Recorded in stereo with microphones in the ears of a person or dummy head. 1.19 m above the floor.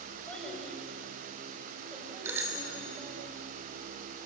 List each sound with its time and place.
0.3 s a child speaking: 5° left (ahead or behind), 5 m; by 3.2 s 15° right (ahead or behind), 5.5 m
2.2 s a bicycle bell: 15° right (ahead or behind), 3 m